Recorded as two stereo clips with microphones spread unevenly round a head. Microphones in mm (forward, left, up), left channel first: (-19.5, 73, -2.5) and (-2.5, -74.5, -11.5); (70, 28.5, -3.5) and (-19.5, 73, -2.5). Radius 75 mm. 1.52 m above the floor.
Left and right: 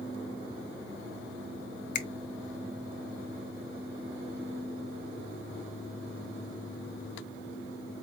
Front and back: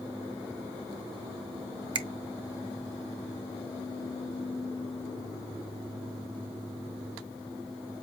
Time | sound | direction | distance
1.9 | a finger snap | 125° left | 0.6 m